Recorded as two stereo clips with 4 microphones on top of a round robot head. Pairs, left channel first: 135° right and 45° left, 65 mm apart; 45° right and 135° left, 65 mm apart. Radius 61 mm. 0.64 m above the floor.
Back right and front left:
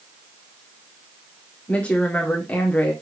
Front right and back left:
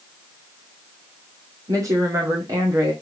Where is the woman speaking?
160° left, 1.9 m.